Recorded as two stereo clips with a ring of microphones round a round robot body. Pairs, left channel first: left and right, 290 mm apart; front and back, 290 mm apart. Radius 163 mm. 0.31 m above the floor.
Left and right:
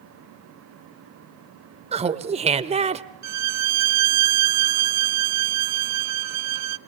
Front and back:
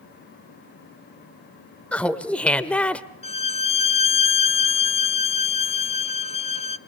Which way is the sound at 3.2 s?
70° right.